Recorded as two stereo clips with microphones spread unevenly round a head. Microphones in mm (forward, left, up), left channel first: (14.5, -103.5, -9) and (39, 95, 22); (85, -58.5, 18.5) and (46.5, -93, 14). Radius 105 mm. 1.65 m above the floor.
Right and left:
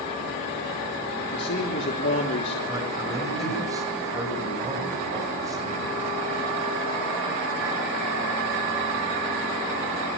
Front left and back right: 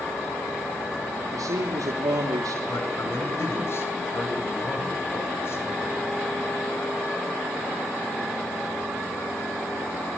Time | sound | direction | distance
1.3 | a man speaking | 140° right | 3 m
2.7 | a man speaking | 10° left | 9 m